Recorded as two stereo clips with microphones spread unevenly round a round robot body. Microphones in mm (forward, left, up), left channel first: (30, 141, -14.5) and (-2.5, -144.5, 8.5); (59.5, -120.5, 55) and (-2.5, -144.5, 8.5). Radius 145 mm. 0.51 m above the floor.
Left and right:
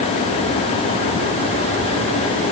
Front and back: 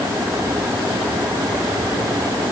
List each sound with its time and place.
Only background noise.